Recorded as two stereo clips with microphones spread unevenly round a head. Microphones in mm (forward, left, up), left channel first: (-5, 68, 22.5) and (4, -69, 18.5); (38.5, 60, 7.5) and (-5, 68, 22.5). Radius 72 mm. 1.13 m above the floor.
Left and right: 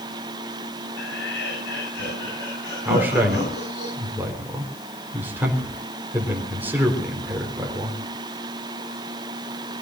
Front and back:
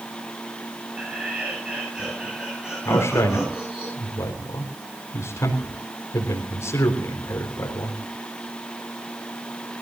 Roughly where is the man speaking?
Ahead.